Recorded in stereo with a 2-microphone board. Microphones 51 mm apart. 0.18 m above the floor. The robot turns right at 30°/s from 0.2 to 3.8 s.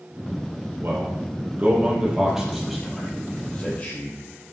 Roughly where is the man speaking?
Right.